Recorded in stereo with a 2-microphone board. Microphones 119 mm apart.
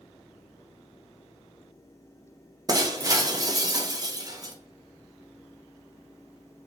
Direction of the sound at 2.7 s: 30° right (ahead or behind).